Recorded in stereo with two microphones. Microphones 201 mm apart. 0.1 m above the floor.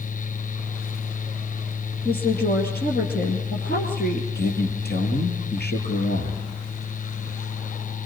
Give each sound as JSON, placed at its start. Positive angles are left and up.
{"t": 2.0, "sound": "a woman speaking", "side_deg": 55, "distance_m": 2.5}
{"t": 4.3, "sound": "a man speaking", "side_deg": 55, "distance_m": 3.0}